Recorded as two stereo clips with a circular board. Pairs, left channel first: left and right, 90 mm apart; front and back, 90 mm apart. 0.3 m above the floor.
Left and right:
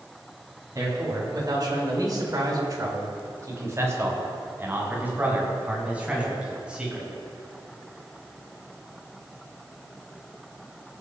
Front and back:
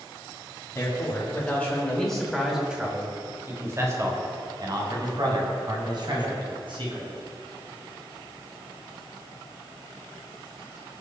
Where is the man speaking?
50° right, 3 m; by 7.1 s 170° right, 5 m.